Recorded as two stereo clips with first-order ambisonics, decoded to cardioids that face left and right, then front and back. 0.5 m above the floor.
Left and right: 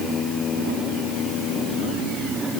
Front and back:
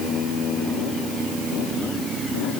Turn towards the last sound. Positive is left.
No sound to turn to.